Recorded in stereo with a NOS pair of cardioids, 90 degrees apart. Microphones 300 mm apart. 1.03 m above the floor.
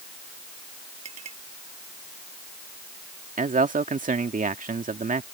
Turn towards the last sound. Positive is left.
turn(degrees=-25)